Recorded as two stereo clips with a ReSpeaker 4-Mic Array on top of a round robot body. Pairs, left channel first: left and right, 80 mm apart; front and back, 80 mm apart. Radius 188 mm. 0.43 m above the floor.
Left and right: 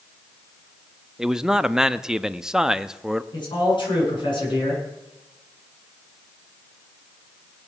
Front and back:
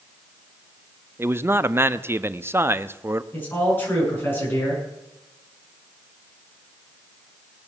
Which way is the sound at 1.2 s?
165° right.